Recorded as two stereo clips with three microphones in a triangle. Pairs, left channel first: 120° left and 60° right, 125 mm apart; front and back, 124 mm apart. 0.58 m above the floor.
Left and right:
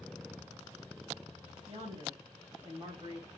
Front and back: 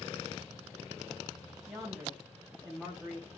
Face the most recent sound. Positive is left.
turn(degrees=-90)